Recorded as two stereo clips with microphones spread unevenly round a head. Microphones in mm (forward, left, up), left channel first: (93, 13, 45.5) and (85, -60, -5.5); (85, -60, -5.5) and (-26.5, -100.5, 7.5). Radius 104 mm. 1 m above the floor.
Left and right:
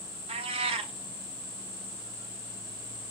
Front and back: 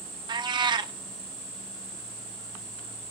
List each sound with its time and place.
0.3 s a cat meowing: 120° right, 0.7 m